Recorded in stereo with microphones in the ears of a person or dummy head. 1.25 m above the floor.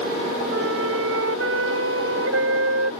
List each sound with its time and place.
0.5 s a flute: 85° right